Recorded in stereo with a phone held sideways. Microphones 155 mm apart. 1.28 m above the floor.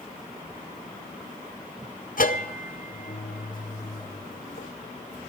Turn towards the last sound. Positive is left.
turn(degrees=65)  # may be behind; listen again after turning